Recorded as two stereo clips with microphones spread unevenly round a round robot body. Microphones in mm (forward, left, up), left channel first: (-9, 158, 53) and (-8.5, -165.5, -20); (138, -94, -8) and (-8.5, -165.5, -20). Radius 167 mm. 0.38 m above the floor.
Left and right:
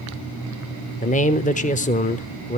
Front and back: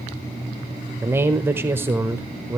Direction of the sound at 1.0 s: 160° left.